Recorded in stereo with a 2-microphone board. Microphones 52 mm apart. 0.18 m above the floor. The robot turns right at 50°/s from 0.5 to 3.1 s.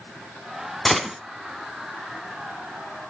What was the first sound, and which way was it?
A gunshot, 5° left (ahead or behind).